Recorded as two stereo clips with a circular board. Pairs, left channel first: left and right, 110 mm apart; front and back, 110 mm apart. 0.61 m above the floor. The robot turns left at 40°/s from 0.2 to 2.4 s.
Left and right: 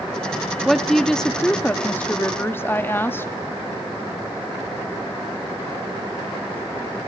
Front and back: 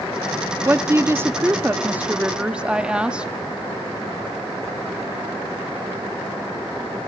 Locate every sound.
0.7 s a woman speaking: 175° right, 0.6 m; by 3.3 s 115° left, 0.6 m